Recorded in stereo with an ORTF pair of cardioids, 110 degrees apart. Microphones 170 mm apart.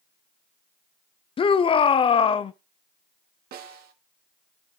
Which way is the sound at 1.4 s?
30° left.